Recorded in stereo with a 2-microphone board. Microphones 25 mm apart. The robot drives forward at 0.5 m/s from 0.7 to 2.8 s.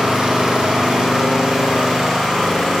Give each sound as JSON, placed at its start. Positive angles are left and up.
{"t": 0.0, "sound": "an engine running", "side_deg": -30, "distance_m": 1.6}